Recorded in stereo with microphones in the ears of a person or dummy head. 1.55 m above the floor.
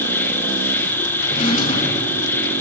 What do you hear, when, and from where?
0.0 s an insect: 15° left (ahead or behind), 0.9 m
1.2 s a drawer: 40° left (ahead or behind), 5.5 m